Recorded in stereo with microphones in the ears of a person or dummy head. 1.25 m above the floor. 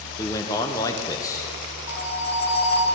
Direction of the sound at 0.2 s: 15° left (ahead or behind).